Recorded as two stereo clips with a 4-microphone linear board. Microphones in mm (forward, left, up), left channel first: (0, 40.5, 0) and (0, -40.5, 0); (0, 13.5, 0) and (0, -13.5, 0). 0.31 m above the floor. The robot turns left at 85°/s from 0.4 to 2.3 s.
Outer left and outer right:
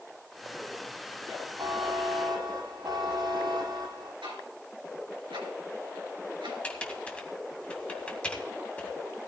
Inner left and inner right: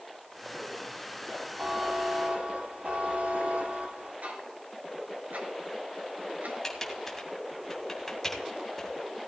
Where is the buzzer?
50° right, 5.5 m; by 4.1 s 110° right, 5.5 m.